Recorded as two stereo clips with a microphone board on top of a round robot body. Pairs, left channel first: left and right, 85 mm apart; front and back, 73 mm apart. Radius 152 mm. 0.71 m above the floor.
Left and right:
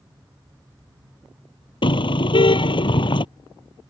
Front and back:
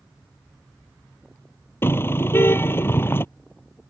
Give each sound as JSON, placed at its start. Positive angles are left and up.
{"t": 1.8, "sound": "a car horn", "azimuth_deg": 60}